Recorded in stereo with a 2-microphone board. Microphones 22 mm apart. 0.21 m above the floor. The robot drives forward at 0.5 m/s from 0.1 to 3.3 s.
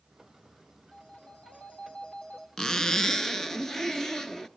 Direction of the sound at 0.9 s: 80° left.